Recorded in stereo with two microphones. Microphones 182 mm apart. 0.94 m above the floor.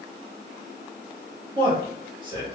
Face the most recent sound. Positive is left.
turn(degrees=-30)  # may be behind; listen again after turning